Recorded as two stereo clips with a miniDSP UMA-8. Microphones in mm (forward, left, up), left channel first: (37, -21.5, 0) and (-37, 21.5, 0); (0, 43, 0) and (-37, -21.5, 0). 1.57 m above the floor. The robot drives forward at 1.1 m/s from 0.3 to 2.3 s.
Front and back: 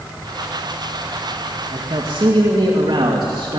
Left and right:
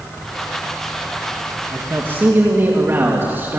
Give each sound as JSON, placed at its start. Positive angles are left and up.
{"t": 1.7, "sound": "a man speaking", "azimuth_deg": 180, "distance_m": 1.9}